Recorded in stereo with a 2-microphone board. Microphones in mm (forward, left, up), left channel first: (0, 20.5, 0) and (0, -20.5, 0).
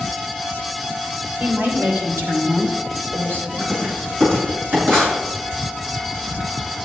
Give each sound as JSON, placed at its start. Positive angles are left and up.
{"t": 1.4, "sound": "a woman speaking", "side_deg": -50, "distance_m": 3.0}
{"t": 3.6, "sound": "writing", "side_deg": -65, "distance_m": 6.5}